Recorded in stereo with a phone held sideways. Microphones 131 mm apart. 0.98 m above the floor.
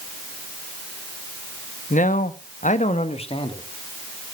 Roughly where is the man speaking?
Left.